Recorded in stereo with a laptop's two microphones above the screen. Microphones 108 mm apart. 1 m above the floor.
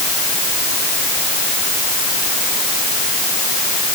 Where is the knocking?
No knocking in this recording.